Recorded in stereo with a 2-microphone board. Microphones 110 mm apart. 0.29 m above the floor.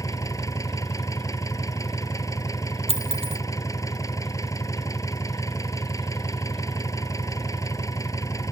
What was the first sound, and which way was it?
An engine running, 30° left (ahead or behind).